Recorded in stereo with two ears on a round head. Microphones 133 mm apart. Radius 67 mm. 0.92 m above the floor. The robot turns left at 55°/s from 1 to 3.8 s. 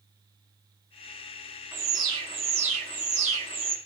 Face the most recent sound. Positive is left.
turn(degrees=-135)